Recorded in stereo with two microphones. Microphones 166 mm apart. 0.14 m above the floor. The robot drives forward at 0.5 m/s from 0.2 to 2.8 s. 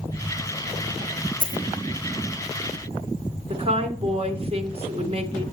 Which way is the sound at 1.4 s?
55° right (ahead or behind).